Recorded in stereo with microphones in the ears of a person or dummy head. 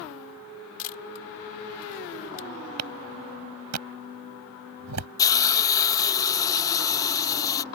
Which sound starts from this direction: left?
A camera shutter, at 0.8 s.